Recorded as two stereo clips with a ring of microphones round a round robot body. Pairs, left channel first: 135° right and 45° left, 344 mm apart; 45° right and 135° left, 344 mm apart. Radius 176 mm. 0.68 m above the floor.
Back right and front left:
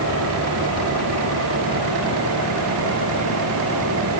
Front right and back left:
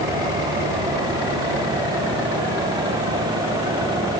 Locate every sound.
Only background noise.